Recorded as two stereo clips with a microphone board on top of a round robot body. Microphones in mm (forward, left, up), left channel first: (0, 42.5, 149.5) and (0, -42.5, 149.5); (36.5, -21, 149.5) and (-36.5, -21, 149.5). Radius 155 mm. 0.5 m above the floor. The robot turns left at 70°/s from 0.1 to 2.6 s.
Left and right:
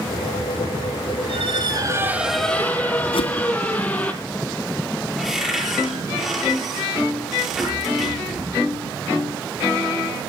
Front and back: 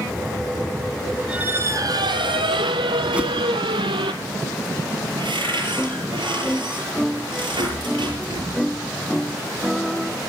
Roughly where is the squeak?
Right.